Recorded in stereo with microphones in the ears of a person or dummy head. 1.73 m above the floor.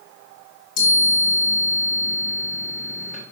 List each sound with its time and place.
0.8 s a chime: 45° left (ahead or behind), 4 m